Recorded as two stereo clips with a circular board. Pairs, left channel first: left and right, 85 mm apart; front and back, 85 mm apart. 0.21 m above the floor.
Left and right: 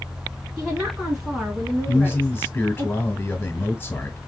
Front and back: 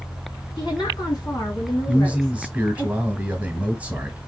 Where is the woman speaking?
15° right, 2 m; by 2.9 s 35° left, 2 m.